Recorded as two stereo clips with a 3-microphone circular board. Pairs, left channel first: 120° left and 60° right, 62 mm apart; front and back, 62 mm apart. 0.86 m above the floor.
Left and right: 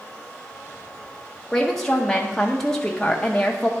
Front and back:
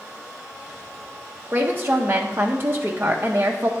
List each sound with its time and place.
1.5 s a woman speaking: 160° right, 0.5 m